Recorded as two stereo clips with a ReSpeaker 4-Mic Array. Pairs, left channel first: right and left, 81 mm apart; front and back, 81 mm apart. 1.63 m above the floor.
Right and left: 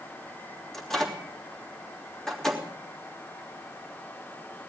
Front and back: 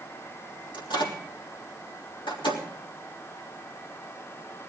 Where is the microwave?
5° right, 3 m.